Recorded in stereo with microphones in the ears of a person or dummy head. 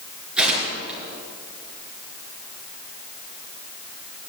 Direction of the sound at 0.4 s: Centre (ahead or behind).